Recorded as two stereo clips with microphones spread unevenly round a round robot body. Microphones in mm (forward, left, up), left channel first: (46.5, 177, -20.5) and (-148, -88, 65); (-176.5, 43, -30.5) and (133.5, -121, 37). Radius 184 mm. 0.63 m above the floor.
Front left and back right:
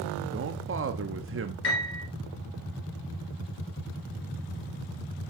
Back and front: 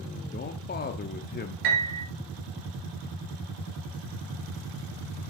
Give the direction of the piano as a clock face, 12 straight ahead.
12 o'clock.